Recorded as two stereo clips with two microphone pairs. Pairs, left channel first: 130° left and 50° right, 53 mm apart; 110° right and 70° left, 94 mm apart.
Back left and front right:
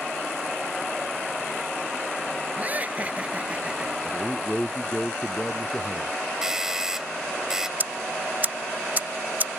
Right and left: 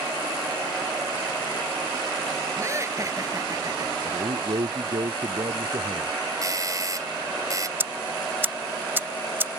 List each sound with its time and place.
2.6 s laughter: 10° left; by 4.0 s 20° left
4.0 s a man speaking: 55° left
6.4 s a doorbell: 30° left
7.8 s ticking: 5° left